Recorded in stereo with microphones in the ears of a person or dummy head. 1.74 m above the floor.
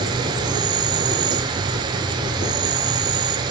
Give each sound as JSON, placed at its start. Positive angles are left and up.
{"t": 0.0, "sound": "an insect", "side_deg": -30, "distance_m": 1.9}